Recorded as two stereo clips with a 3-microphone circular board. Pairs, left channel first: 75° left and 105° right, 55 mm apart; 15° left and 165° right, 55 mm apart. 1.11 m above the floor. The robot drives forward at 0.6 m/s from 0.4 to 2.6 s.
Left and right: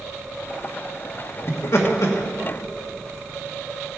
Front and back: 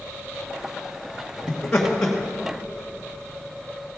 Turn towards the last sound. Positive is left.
turn(degrees=110)